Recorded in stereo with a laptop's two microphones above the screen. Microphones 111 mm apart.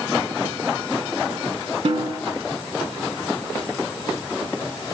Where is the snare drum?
65° right (ahead or behind), 1.4 m.